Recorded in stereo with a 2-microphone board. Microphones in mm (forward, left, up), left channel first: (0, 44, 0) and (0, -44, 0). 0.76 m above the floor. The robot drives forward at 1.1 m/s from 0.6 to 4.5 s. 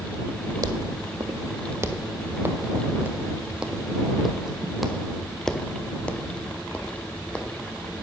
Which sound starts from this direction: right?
Footsteps, at 0.6 s.